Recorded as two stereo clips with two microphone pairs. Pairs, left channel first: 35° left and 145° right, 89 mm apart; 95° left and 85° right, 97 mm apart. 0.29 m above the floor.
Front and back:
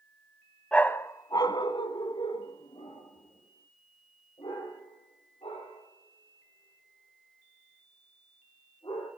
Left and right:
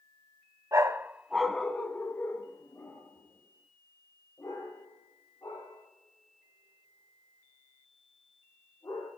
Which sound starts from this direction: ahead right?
A dog barking, at 0.7 s.